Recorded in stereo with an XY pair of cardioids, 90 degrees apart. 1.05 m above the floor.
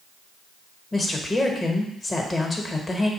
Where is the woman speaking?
30° left, 1.1 m.